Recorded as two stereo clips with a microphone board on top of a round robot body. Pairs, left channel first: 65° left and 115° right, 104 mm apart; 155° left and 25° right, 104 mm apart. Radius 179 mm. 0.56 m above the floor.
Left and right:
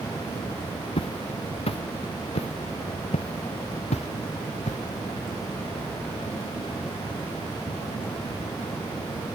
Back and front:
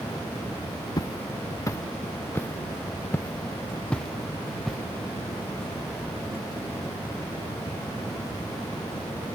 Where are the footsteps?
100° left; by 4.8 s 65° left.